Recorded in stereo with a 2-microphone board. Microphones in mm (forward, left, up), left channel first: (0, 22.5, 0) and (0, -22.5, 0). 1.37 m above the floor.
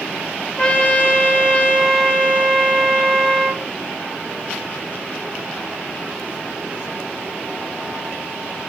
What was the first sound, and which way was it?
A trumpet, 30° left (ahead or behind).